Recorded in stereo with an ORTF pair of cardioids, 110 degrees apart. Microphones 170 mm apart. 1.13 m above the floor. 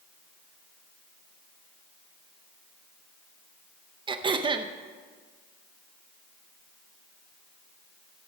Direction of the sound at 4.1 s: 30° right.